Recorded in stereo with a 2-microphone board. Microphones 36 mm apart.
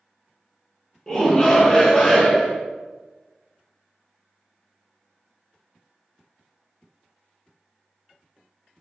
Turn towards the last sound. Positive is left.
turn(degrees=20)  # may be behind; listen again after turning